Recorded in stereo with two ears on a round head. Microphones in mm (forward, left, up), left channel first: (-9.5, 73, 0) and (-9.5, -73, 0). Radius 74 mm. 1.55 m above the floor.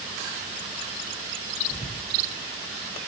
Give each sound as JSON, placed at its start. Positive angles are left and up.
{"t": 1.7, "sound": "whispering", "side_deg": 35, "distance_m": 1.4}